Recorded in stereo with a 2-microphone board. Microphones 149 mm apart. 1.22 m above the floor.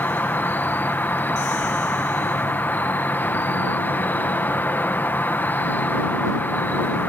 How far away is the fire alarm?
I don't hear a fire alarm.